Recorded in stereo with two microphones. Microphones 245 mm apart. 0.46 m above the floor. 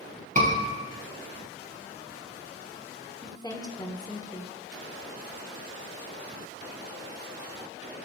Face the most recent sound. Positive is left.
turn(degrees=15)  # may be behind; listen again after turning